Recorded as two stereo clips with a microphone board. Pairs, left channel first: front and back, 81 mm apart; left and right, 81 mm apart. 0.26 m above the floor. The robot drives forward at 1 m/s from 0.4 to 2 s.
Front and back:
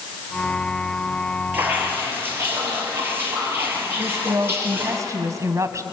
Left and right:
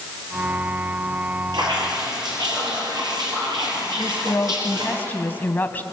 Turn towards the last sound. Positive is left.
turn(degrees=150)